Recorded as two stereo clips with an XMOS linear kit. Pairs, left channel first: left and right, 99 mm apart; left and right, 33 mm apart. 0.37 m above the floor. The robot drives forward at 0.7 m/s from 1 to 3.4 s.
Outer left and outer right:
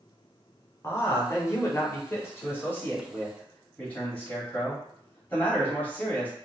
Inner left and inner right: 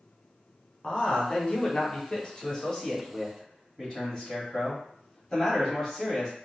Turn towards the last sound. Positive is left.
turn(degrees=15)  # may be behind; listen again after turning